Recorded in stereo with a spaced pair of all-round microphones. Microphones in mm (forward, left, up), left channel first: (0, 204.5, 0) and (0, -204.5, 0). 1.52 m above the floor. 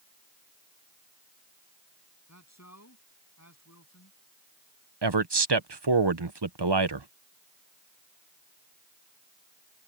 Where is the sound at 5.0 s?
75° right (ahead or behind).